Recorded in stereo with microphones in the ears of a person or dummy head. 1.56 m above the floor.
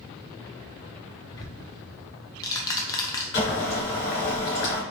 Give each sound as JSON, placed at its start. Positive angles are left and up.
{"t": 1.3, "sound": "ticking", "side_deg": 20, "distance_m": 0.5}
{"t": 3.3, "sound": "boiling", "side_deg": 40, "distance_m": 1.6}